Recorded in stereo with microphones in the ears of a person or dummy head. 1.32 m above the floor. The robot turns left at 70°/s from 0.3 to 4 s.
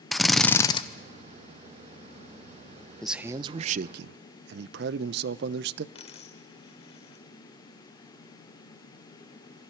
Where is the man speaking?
5° left, 0.6 m; by 5.8 s 65° right, 0.6 m.